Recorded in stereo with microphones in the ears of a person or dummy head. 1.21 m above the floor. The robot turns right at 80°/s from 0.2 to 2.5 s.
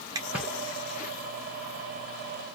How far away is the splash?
About 1.4 m.